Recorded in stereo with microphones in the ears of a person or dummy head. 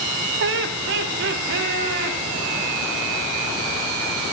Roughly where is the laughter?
Right.